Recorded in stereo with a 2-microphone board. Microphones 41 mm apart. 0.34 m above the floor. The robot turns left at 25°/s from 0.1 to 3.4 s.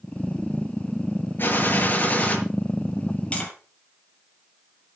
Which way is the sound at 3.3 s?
30° left (ahead or behind).